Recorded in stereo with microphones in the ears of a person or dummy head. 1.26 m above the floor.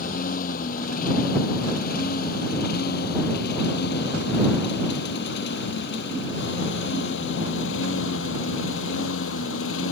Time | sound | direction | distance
0.0 | a lawn mower | 45° left (ahead or behind) | ?